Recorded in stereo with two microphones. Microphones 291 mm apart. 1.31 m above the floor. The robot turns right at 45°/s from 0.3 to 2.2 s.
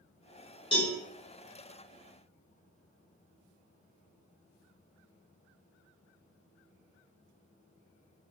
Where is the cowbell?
15° left (ahead or behind), 0.9 m; by 0.9 s 5° left (ahead or behind), 0.9 m.